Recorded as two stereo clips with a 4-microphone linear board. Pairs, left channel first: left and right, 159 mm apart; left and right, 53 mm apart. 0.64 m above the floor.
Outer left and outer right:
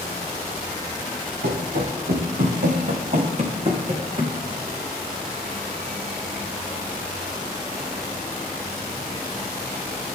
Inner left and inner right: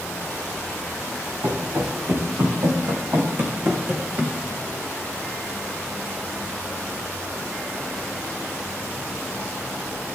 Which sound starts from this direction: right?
Running footsteps, at 1.4 s.